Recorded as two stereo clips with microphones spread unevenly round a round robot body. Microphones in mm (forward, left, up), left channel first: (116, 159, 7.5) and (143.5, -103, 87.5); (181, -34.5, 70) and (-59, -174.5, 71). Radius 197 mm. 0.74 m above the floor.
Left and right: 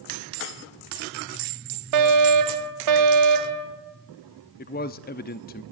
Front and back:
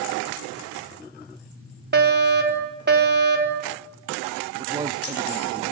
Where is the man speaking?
135° left, 0.8 m.